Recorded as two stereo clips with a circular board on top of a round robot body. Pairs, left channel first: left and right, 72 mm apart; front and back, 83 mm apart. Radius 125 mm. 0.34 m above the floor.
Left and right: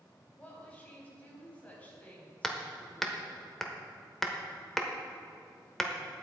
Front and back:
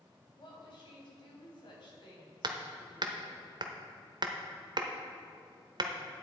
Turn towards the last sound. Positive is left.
turn(degrees=175)